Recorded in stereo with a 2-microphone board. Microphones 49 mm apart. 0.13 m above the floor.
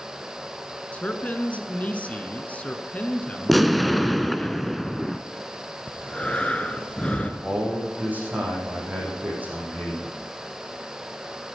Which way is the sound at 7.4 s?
30° right (ahead or behind).